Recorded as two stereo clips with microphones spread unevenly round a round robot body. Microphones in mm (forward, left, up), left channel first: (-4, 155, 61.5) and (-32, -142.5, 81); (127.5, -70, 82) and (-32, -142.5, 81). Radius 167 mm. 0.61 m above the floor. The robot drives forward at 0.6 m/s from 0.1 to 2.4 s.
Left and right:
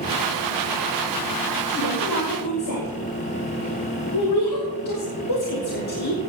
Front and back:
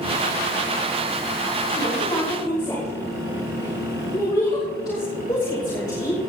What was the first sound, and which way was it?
A woman speaking, 90° left.